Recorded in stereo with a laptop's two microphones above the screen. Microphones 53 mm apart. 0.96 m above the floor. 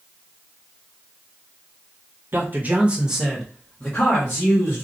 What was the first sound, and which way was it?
A man speaking, 40° right (ahead or behind).